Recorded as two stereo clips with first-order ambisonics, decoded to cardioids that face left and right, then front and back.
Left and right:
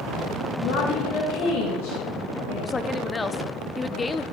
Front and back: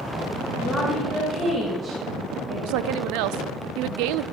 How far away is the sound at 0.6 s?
About 2.5 m.